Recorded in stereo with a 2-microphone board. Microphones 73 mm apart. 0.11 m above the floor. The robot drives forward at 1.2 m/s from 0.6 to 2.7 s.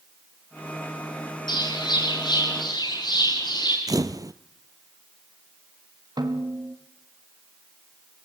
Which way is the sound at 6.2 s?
65° right (ahead or behind).